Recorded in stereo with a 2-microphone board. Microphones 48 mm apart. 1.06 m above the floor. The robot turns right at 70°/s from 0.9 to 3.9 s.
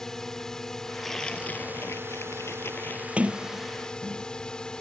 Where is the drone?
170° left; by 4.8 s 20° left.